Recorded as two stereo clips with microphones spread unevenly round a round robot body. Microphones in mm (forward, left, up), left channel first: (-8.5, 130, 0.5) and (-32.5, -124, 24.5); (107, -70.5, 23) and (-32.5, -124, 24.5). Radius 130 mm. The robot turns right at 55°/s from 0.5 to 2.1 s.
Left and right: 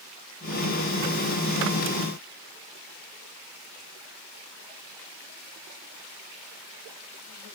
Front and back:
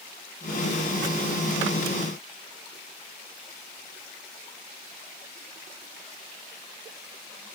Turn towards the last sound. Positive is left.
No sound to turn to.